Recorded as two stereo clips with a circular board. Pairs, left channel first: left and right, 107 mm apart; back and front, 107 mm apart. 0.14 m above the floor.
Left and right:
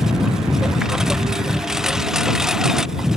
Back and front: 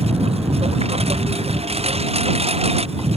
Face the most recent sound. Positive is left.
turn(degrees=-5)